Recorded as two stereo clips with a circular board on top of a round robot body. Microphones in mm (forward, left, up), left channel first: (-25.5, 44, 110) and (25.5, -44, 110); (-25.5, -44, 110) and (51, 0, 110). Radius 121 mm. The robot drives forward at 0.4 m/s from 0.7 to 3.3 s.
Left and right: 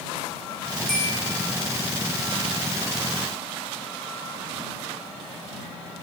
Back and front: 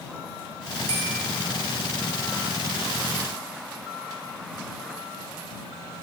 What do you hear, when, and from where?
0.9 s a bell: 35° left, 0.6 m; by 1.1 s 40° left, 0.5 m